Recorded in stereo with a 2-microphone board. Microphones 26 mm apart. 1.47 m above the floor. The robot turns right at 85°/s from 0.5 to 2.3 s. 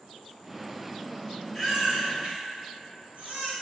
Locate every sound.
1.5 s a baby crying: centre (ahead or behind), 2.0 m; by 3.5 s 60° right (ahead or behind), 2.0 m